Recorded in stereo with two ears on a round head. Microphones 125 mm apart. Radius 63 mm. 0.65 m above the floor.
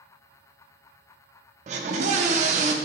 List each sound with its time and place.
1.7 s a scream: 50° right (ahead or behind), 0.8 m